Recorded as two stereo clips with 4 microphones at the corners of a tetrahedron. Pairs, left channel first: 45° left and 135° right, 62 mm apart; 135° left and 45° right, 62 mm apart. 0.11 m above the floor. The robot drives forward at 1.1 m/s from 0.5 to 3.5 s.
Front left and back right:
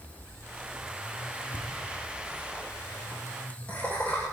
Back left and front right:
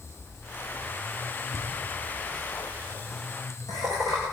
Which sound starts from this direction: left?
Laughter, at 1.5 s.